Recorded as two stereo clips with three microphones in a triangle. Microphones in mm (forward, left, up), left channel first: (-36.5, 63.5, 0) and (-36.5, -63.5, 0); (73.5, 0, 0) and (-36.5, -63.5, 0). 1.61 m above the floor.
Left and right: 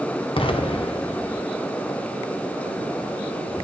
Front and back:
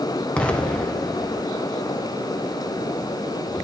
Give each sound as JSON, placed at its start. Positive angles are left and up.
{"t": 0.4, "sound": "an explosion", "azimuth_deg": 110, "distance_m": 0.6}